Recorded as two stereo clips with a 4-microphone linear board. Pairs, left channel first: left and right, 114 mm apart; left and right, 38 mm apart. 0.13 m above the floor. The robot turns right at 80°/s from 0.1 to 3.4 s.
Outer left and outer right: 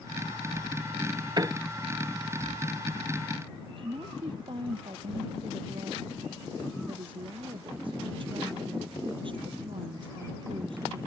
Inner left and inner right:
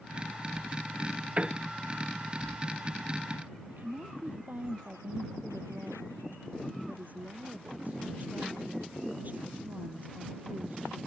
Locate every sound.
1.4 s a piano: 40° right (ahead or behind); by 1.6 s 20° right (ahead or behind)
3.7 s a woman speaking: 55° right (ahead or behind)